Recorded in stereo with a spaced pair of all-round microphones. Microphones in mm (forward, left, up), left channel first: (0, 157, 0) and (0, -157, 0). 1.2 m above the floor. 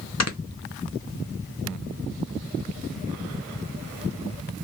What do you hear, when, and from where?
0.2 s snoring: 55° left (ahead or behind), 0.7 m